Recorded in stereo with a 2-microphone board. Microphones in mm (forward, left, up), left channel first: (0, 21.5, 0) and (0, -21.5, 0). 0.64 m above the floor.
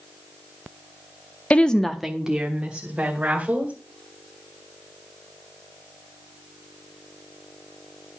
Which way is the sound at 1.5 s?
30° left (ahead or behind).